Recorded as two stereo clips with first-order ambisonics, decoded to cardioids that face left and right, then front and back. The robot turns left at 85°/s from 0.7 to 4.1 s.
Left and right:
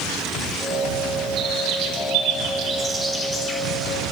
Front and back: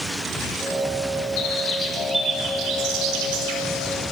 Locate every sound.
1.4 s a bird: 35° right, 4.5 m; by 3.6 s 135° left, 4.5 m